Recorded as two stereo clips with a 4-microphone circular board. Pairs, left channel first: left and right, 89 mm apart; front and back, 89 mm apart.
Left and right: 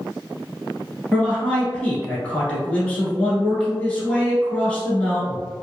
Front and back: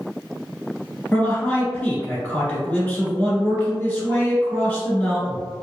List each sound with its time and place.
1.1 s a man speaking: 35° left, 1.1 m